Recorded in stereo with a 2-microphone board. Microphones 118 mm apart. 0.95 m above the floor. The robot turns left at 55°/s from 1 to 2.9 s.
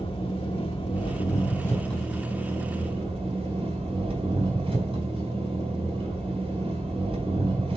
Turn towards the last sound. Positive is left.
turn(degrees=-50)